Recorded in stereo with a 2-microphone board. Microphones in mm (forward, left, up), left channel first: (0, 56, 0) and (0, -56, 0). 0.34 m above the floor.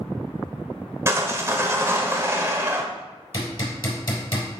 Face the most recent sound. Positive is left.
turn(degrees=45)  # may be behind; listen again after turning